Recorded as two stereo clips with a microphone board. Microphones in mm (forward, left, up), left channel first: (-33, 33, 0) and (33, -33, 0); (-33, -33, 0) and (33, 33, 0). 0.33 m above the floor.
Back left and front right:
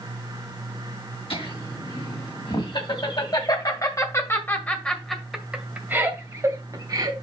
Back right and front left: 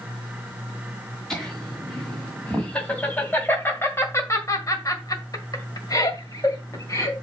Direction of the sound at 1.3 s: 140° left.